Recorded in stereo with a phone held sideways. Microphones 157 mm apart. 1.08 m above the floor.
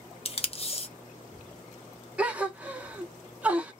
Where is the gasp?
10° right (ahead or behind), 0.7 m.